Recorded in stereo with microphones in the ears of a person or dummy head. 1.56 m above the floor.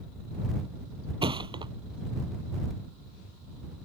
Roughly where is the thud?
Right.